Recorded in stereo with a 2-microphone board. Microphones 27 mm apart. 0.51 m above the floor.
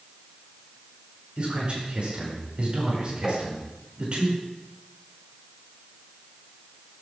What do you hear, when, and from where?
1.4 s a man speaking: 45° right (ahead or behind), 8 m
3.2 s tapping: 15° right (ahead or behind), 2.5 m